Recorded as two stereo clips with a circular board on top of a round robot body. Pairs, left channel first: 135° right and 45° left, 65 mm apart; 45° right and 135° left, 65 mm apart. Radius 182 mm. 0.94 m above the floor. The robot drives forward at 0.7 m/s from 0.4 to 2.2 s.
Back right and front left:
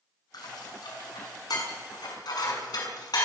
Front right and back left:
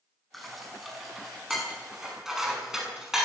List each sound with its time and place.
0.3 s dishes clattering: 135° right, 5.5 m; by 3.2 s 140° right, 6.5 m